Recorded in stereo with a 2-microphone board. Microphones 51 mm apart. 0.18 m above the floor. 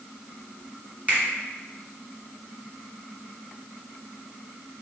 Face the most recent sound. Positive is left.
turn(degrees=-35)  # may be behind; listen again after turning